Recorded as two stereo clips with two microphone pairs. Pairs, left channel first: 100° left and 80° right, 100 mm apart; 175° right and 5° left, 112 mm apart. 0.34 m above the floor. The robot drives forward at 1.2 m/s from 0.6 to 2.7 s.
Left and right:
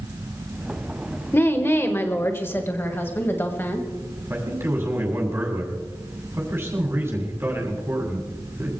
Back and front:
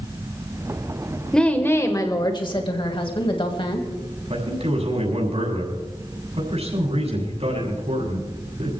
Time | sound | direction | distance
1.3 | a woman speaking | 110° left | 1.5 m
4.3 | a man speaking | 15° right | 7 m